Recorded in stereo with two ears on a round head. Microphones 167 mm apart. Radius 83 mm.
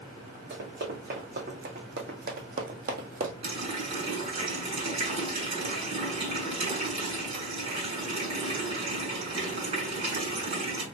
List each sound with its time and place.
0.5 s running footsteps: 50° right (ahead or behind), 2.5 m; by 3.3 s 45° right (ahead or behind), 1.1 m
3.4 s a running tap: 35° right (ahead or behind), 3 m